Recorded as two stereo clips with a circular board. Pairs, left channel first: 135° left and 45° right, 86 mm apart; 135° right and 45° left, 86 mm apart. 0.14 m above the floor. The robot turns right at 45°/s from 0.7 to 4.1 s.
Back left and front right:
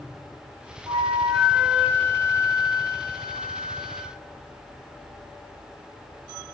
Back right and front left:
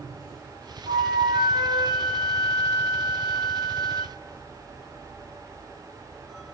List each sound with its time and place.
0.9 s a flute: 20° left, 2.5 m; by 4.1 s 165° left, 2.5 m